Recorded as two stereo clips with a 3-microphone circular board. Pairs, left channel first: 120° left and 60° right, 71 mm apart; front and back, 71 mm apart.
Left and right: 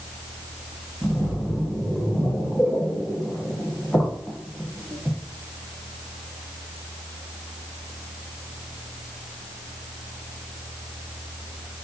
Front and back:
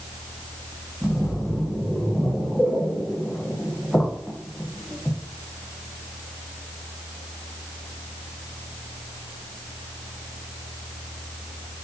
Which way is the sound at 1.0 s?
50° left.